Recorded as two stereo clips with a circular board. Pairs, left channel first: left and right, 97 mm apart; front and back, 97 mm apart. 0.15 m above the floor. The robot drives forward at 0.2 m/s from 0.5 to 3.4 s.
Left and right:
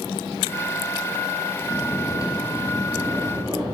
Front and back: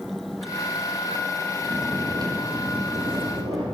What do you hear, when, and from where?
1.6 s snoring: 140° left, 1.2 m; by 3.6 s 150° left, 1.5 m